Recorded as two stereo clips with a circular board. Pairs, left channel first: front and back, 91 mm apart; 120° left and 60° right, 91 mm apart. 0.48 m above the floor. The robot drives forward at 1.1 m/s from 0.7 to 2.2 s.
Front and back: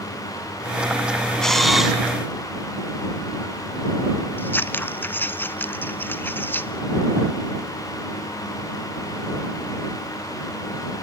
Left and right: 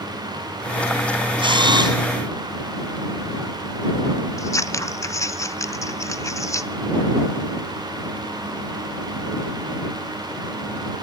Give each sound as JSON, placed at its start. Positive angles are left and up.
{"t": 1.4, "sound": "a camera shutter", "azimuth_deg": -85, "distance_m": 3.0}
{"t": 4.4, "sound": "scissors", "azimuth_deg": 70, "distance_m": 0.8}